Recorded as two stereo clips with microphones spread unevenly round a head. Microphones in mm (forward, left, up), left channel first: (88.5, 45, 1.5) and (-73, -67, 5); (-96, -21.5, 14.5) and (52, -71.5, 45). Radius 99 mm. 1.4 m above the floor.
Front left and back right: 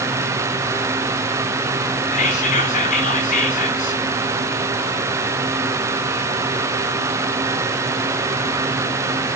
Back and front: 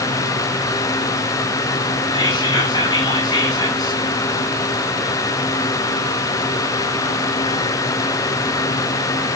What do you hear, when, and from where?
2.1 s whispering: 90° left, 3.5 m